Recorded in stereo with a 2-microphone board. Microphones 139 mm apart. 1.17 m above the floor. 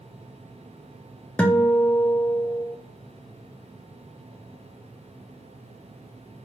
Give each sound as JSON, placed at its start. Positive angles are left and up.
{"t": 1.4, "sound": "a guitar", "side_deg": 10, "distance_m": 0.5}